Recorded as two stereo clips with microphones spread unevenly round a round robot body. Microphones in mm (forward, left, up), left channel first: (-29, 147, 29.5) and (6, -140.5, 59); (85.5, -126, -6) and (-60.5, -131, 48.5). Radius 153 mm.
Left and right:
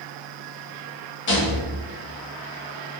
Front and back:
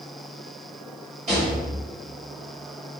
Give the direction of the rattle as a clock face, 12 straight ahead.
8 o'clock.